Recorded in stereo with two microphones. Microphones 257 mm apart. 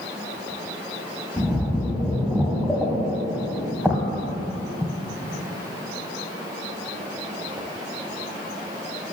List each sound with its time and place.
1.4 s a splash: 5° right (ahead or behind), 1.1 m